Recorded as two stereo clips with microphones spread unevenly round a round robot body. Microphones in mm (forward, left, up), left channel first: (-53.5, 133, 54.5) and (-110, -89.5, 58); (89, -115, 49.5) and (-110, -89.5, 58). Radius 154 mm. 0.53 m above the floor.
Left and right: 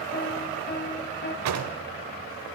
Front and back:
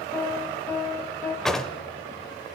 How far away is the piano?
About 1.1 m.